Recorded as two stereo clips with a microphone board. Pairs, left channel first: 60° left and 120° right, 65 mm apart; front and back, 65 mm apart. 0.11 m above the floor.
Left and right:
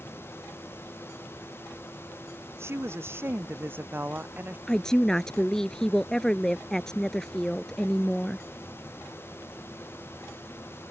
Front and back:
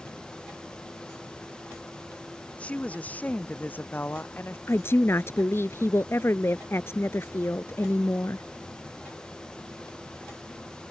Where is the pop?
I don't hear a pop.